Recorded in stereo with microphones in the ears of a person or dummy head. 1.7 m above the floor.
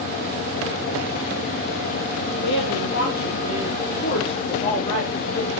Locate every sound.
2.4 s a woman speaking: 75° left (ahead or behind), 4 m; by 5.5 s 25° left (ahead or behind), 4.5 m